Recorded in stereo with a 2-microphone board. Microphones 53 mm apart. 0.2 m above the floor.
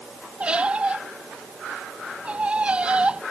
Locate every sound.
0.4 s a squeak: 20° right (ahead or behind)